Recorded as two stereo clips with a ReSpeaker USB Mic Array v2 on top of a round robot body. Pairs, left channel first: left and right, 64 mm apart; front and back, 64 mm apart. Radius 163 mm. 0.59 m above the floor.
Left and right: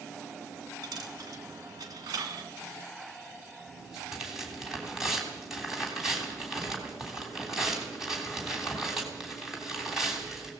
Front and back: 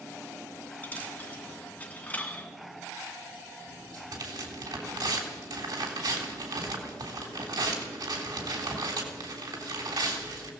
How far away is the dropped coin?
About 1.4 m.